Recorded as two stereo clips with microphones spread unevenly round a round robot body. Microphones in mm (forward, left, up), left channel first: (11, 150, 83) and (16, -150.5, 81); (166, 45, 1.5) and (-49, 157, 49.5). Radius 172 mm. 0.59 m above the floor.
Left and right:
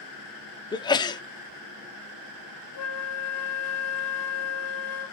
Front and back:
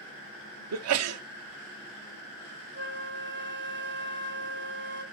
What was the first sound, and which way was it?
A sneeze, 165° left.